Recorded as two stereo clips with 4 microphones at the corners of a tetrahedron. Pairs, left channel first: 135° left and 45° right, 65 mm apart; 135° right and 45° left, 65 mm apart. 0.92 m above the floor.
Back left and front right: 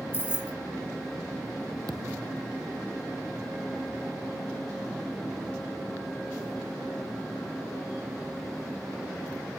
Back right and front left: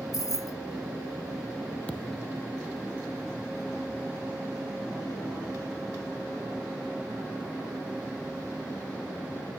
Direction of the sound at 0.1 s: 170° right.